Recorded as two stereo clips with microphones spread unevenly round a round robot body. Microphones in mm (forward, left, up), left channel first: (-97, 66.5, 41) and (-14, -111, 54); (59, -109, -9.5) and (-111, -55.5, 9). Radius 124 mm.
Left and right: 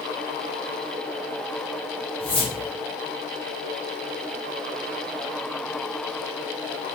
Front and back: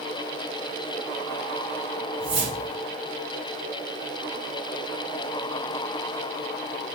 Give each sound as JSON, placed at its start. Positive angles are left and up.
{"t": 2.2, "sound": "a whoosh", "azimuth_deg": 180, "distance_m": 1.9}